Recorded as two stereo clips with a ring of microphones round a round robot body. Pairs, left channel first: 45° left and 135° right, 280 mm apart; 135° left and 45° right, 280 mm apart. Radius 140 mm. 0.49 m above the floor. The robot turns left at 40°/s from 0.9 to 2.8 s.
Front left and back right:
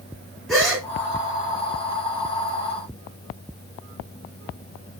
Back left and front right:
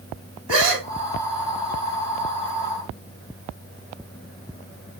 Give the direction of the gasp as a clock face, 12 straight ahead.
2 o'clock.